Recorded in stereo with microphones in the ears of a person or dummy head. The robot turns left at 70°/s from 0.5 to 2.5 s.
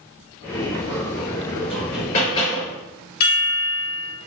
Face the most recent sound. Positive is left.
turn(degrees=60)  # may be behind; listen again after turning